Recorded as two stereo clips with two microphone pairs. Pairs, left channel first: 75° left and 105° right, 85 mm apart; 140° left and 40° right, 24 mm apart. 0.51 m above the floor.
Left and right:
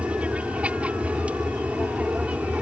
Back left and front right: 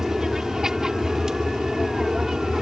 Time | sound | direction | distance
0.0 | an aircraft | 55° right | ?